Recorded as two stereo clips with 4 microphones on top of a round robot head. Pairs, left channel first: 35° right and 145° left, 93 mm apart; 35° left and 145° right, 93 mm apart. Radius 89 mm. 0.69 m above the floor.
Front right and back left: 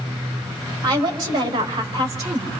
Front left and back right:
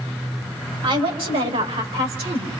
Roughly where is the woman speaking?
Behind.